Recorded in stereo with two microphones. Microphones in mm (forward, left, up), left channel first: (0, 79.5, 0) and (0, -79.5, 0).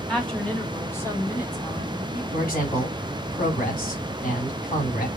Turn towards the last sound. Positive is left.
turn(degrees=60)  # may be behind; listen again after turning